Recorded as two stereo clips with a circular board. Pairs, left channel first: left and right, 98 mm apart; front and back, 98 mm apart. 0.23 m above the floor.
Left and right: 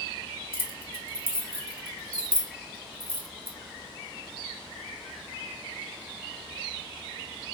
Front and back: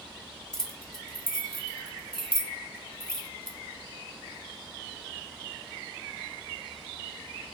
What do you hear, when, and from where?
0.5 s keys jangling: 75° right, 0.7 m